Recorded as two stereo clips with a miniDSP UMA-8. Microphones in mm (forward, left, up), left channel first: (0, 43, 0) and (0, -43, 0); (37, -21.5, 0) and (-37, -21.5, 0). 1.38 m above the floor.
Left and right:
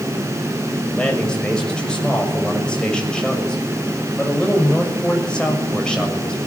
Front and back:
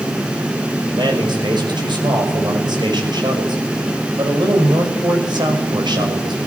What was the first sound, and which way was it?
A man speaking, 170° left.